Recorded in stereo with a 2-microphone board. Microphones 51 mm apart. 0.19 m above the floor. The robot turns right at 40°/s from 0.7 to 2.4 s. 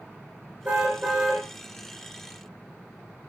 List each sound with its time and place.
0.7 s a car horn: 30° right (ahead or behind), 5.5 m; by 1.4 s centre (ahead or behind), 5.5 m